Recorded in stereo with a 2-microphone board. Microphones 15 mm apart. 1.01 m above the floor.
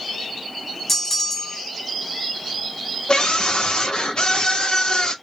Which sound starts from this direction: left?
A scream, at 3.1 s.